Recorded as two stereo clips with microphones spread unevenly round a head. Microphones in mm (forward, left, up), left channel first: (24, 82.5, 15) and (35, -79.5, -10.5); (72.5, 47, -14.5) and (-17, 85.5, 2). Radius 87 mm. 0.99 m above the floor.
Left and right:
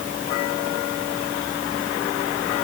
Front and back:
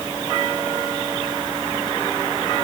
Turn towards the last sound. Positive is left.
No sound to turn to.